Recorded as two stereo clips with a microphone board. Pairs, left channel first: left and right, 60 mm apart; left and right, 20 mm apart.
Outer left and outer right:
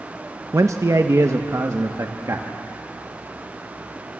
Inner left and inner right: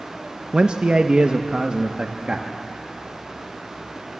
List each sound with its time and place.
0.5 s a man speaking: 60° right (ahead or behind), 0.8 m; by 2.5 s 55° right (ahead or behind), 1.8 m